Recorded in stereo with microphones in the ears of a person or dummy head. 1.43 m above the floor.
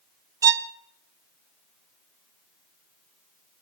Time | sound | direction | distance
0.4 | a violin | 15° right (ahead or behind) | 0.5 m